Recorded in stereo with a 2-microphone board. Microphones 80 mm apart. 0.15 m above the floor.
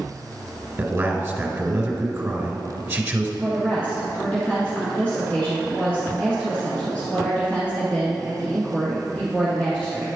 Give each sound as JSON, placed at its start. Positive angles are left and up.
{"t": 0.8, "sound": "a man speaking", "side_deg": -25, "distance_m": 1.5}
{"t": 3.4, "sound": "a woman speaking", "side_deg": 15, "distance_m": 1.6}